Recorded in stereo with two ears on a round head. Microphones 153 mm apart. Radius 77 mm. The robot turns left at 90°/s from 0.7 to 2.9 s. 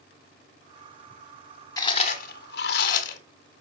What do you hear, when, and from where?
1.8 s chewing: 155° left, 1.4 m; by 3.2 s 50° left, 1.4 m